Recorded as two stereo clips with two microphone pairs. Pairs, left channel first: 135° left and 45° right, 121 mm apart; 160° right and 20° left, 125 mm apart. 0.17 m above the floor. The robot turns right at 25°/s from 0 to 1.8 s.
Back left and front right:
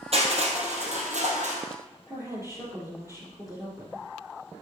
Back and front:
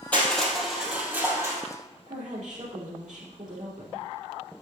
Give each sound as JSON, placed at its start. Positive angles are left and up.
{"t": 0.1, "sound": "crushing", "azimuth_deg": -80, "distance_m": 2.5}
{"t": 2.1, "sound": "a woman speaking", "azimuth_deg": 20, "distance_m": 4.0}